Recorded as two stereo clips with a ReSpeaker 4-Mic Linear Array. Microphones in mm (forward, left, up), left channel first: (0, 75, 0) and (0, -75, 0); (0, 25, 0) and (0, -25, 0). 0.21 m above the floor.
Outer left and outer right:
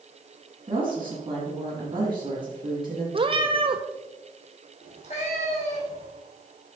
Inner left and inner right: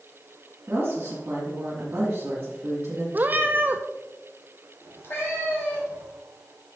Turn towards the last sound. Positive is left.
turn(degrees=50)  # may be behind; listen again after turning